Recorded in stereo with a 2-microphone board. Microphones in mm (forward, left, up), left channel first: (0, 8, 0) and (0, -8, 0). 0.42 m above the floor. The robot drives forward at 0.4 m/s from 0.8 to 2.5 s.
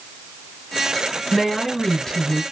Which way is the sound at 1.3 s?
35° left (ahead or behind).